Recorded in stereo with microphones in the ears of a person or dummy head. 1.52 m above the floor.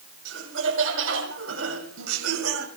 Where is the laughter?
70° right (ahead or behind), 7 m; by 2.7 s 85° right, 7 m.